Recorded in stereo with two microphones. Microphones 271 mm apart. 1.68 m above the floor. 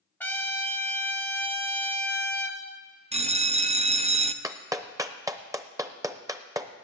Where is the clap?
10° right (ahead or behind), 0.7 m.